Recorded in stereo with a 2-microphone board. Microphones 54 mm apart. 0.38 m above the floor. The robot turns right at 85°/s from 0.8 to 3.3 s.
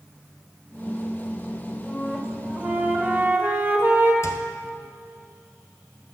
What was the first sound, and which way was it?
A flute, 160° left.